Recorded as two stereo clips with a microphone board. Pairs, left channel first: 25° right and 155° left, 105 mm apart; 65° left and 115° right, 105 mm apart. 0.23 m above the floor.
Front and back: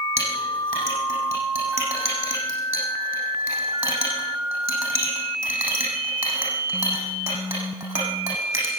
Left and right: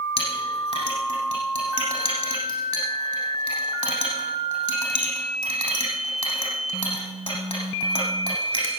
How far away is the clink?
About 7 m.